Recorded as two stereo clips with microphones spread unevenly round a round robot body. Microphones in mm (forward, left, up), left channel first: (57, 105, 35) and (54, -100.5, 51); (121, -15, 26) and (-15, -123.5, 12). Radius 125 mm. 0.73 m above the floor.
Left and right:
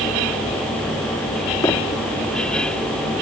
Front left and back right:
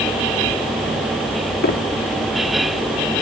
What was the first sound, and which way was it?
Footsteps, 15° left.